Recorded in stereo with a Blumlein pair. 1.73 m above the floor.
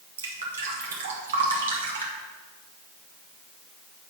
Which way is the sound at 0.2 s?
60° right.